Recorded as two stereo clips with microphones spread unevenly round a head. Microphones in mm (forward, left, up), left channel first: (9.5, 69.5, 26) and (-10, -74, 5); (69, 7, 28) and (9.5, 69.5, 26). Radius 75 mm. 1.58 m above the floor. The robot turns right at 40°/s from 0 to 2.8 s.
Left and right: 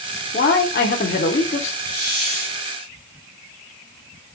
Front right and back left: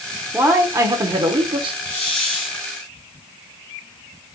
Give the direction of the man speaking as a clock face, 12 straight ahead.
10 o'clock.